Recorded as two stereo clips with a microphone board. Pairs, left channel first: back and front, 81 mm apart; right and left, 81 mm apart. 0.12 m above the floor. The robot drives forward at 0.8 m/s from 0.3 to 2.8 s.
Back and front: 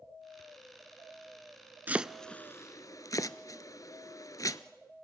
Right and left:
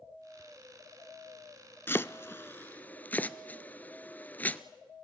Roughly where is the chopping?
Ahead right.